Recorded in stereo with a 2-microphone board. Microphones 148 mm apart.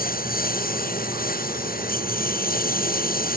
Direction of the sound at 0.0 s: 80° left.